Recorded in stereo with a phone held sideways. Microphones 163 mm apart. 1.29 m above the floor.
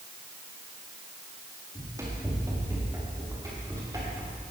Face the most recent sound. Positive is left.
turn(degrees=-20)  # may be behind; listen again after turning